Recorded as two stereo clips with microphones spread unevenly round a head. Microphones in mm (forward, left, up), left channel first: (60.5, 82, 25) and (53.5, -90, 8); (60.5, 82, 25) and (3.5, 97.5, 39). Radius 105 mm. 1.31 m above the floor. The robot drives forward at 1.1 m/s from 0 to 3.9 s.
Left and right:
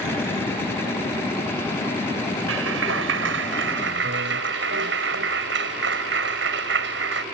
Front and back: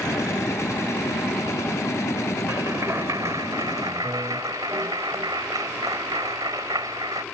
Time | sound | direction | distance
2.5 | a clap | 120° right | ?